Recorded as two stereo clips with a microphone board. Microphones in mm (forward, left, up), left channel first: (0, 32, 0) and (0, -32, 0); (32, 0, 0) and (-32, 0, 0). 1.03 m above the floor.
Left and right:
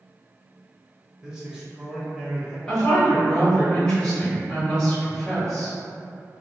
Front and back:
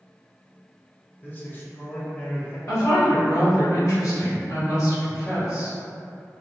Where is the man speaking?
25° right, 0.6 m.